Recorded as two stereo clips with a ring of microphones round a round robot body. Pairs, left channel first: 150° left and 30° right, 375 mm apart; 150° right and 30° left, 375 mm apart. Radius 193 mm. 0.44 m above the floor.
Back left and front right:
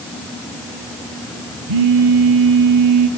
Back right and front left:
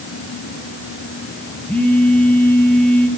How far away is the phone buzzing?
About 2.5 m.